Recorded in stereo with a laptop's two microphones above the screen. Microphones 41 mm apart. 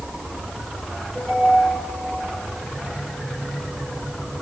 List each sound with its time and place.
1.1 s a ringtone: 15° left (ahead or behind), 8 m